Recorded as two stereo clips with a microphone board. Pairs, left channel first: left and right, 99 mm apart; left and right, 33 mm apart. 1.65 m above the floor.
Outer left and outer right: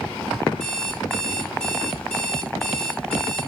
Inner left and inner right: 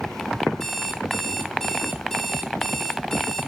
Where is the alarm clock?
5° left (ahead or behind), 2.5 m.